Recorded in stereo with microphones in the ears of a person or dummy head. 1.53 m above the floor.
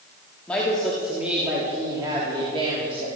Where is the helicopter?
No helicopter in this recording.